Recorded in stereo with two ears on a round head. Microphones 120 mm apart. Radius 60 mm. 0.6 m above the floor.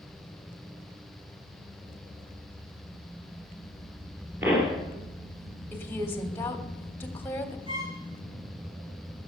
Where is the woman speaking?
15° left (ahead or behind), 1.4 m.